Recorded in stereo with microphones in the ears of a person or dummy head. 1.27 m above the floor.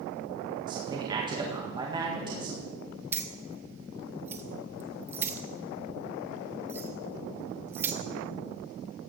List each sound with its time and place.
0.7 s a man speaking: 25° right (ahead or behind), 1.9 m
3.1 s keys jangling: 10° right (ahead or behind), 0.8 m